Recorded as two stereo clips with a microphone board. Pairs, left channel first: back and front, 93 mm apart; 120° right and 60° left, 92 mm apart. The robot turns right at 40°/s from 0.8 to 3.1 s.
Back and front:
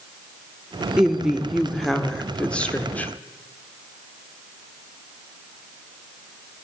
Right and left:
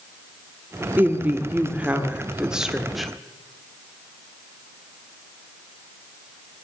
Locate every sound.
1.0 s a woman speaking: 65° left, 1.1 m; by 3.1 s 150° left, 1.1 m